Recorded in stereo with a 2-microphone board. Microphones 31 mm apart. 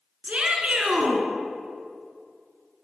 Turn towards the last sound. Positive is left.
turn(degrees=-40)  # may be behind; listen again after turning